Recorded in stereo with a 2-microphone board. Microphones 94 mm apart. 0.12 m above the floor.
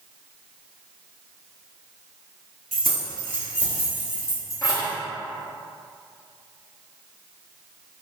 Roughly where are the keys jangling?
Centre.